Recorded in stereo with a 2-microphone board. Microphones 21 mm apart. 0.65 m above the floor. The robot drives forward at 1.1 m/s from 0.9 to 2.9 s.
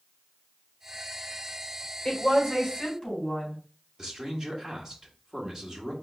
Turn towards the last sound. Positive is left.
turn(degrees=-30)  # may be behind; listen again after turning